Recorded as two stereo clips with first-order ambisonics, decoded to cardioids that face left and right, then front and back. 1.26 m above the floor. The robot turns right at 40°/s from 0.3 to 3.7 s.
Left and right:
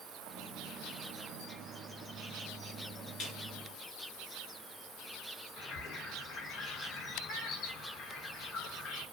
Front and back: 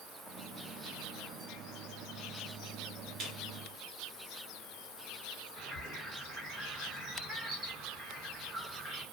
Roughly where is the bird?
Left.